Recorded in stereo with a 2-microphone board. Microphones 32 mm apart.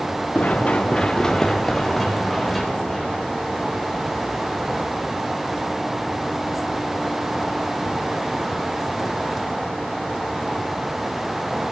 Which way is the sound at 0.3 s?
60° left (ahead or behind).